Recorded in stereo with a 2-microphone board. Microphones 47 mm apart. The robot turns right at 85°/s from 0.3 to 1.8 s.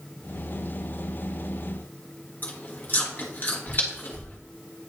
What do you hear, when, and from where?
2.4 s chewing: 45° left (ahead or behind), 1.5 m